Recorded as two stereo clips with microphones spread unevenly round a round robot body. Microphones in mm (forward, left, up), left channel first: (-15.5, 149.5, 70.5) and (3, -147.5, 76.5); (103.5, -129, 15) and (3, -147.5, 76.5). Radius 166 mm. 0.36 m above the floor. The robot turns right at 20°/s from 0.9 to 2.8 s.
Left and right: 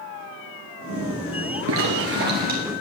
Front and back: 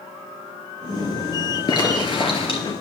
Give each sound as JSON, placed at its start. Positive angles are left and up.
{"t": 1.7, "sound": "a zipper", "azimuth_deg": -40, "distance_m": 2.5}